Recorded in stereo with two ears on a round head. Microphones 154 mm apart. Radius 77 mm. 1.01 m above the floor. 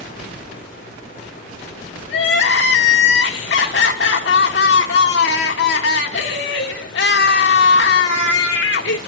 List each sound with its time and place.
2.1 s crying: 70° left (ahead or behind), 1.6 m